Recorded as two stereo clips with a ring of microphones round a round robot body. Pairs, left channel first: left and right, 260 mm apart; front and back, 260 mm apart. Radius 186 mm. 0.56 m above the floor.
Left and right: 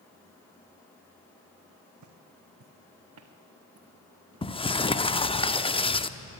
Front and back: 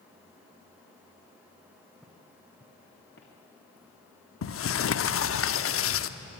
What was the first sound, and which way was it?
Footsteps, 90° right.